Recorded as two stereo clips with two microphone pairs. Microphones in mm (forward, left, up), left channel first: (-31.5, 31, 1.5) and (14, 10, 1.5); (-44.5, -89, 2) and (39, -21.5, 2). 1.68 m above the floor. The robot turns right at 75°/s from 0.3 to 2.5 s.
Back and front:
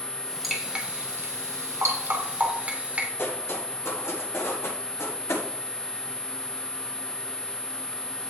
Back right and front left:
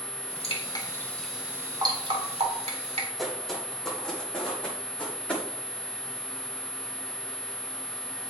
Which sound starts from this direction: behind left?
Footsteps, at 3.2 s.